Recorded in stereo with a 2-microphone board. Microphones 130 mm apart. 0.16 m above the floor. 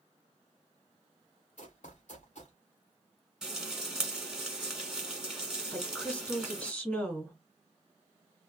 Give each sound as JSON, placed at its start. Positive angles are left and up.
{"t": 1.6, "sound": "running footsteps", "side_deg": 60, "distance_m": 1.1}
{"t": 3.4, "sound": "frying", "side_deg": -5, "distance_m": 1.5}
{"t": 5.7, "sound": "a woman speaking", "side_deg": 10, "distance_m": 1.3}